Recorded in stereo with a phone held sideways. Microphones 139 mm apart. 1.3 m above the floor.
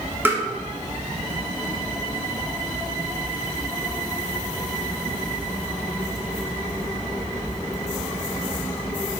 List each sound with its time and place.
0.2 s tapping: 15° right (ahead or behind), 1.2 m